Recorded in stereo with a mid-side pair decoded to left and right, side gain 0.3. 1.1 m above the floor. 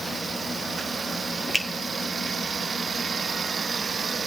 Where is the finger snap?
Straight ahead, 1.3 m.